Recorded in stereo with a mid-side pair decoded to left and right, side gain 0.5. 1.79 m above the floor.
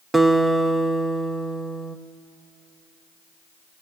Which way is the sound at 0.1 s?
20° right.